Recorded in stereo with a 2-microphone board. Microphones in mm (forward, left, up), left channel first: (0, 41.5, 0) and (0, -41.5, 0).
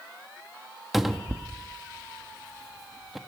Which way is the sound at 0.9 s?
Centre (ahead or behind).